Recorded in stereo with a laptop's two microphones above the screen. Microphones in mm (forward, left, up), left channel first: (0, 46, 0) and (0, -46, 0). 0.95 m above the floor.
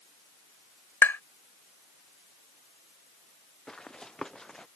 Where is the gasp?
No gasp in this recording.